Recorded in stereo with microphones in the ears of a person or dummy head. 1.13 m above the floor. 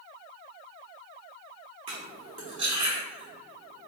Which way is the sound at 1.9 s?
35° right (ahead or behind).